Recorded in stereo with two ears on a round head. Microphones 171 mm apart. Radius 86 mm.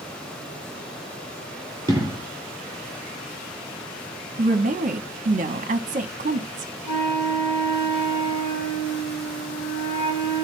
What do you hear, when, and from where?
1.9 s an explosion: 15° right (ahead or behind), 3 m
4.4 s a woman speaking: 40° right (ahead or behind), 1.0 m
6.8 s a flute: 65° left (ahead or behind), 1.3 m